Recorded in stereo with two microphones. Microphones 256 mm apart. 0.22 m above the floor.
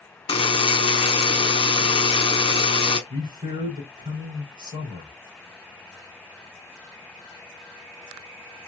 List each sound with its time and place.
0.3 s a buzzer: 20° left (ahead or behind), 0.6 m
3.1 s a man speaking: 15° right (ahead or behind), 3 m